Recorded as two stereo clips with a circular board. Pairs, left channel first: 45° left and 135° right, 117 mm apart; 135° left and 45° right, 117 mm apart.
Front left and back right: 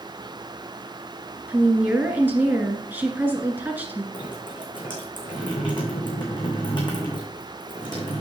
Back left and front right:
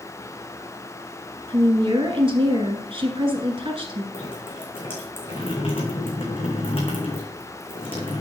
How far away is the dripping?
About 3.5 m.